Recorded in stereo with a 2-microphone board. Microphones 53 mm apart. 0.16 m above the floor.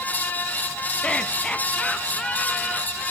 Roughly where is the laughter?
Centre.